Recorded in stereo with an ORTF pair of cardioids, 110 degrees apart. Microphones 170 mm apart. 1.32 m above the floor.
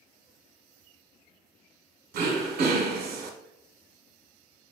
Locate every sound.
2.1 s throat clearing: 65° right, 0.8 m